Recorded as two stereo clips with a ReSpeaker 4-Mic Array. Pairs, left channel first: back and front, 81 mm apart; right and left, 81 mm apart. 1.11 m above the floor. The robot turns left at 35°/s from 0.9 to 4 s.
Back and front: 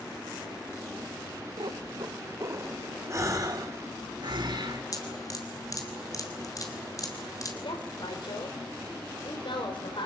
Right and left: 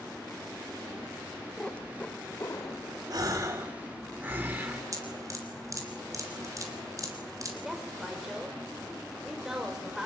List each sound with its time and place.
1.6 s a cat meowing: 10° right, 1.4 m; by 3.0 s 60° right, 1.4 m
3.1 s a gasp: 55° left, 3.5 m; by 4.8 s 20° left, 3.5 m
4.9 s dripping: 135° left, 3.5 m
7.6 s a woman speaking: 175° left, 4.5 m